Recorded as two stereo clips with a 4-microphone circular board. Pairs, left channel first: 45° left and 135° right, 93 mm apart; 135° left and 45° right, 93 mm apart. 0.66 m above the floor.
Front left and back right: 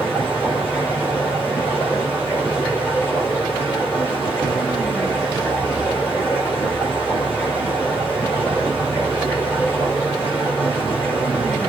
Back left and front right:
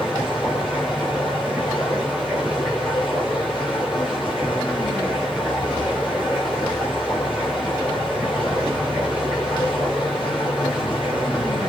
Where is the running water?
110° left, 9 m.